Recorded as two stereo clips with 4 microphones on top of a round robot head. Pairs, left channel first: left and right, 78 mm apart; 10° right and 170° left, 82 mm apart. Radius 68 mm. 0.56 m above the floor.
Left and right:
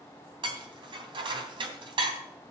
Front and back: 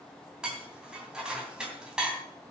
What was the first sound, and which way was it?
Dishes clattering, 105° right.